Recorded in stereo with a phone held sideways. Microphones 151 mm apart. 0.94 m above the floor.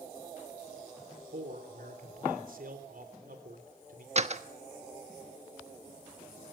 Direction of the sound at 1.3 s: 70° right (ahead or behind).